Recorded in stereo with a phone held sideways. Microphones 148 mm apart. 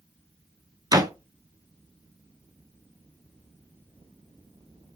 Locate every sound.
0.9 s a door slam: 25° right (ahead or behind), 0.5 m